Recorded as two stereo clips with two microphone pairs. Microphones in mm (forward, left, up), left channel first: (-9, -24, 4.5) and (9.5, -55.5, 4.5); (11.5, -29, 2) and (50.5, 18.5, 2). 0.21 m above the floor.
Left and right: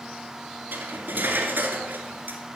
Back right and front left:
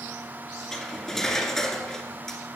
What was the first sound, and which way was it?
Cutlery clinking, 45° right.